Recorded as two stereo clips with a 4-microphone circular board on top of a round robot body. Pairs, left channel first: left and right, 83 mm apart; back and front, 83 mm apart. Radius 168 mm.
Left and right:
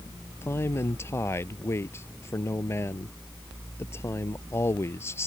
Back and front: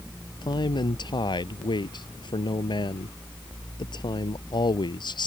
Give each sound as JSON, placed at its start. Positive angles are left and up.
{"t": 0.4, "sound": "a man speaking", "azimuth_deg": 150}